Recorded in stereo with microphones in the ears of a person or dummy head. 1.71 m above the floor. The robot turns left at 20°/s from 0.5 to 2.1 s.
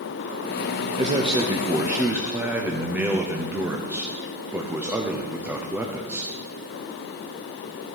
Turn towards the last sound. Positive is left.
turn(degrees=-10)  # may be behind; listen again after turning